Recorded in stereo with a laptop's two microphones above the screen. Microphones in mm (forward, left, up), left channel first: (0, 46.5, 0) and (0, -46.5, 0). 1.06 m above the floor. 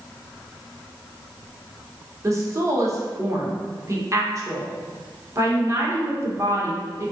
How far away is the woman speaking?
About 0.8 m.